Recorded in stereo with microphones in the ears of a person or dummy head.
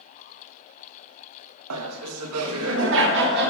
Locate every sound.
1.7 s laughter: 80° right, 0.7 m; by 3.5 s 60° right (ahead or behind), 1.5 m